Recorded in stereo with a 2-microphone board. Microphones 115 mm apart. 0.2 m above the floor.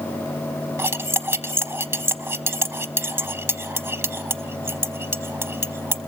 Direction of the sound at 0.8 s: 25° right (ahead or behind).